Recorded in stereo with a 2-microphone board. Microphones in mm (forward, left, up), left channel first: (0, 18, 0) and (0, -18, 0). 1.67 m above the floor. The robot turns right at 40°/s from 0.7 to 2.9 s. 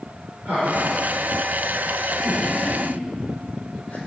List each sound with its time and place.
0.5 s laughter: 50° right (ahead or behind), 4.5 m; by 4.0 s 35° left (ahead or behind), 4.5 m